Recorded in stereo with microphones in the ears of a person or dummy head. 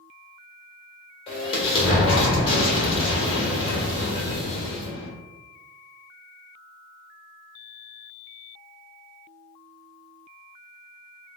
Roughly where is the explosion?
Left.